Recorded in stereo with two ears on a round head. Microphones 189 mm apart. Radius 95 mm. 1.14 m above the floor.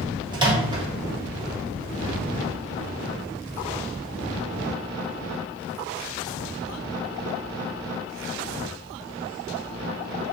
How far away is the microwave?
About 1.0 m.